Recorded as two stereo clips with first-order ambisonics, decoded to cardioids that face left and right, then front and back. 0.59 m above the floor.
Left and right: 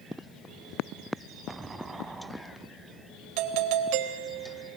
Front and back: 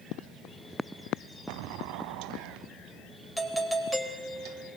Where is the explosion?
170° right, 1.3 m.